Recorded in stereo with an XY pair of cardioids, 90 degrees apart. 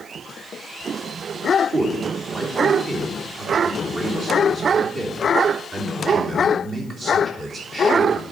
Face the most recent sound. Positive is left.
turn(degrees=-45)